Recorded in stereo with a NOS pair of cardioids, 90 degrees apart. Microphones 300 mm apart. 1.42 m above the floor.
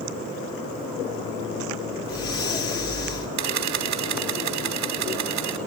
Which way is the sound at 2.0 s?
50° left.